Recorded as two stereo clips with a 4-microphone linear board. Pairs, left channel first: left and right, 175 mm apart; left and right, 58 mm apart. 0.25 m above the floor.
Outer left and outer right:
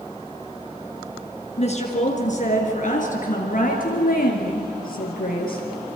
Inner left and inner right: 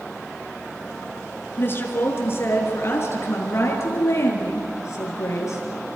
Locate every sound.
1.6 s a woman speaking: 40° left (ahead or behind), 3 m; by 6.0 s 55° left (ahead or behind), 6 m